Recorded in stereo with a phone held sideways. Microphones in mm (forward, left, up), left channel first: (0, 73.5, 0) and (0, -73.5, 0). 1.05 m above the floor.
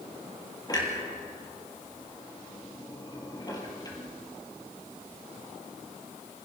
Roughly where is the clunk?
Left.